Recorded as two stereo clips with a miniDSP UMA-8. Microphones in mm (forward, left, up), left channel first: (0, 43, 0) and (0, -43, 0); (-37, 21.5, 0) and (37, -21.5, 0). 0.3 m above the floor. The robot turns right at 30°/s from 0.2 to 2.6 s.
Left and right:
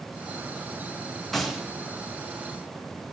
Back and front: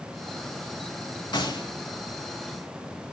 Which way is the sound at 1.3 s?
175° left.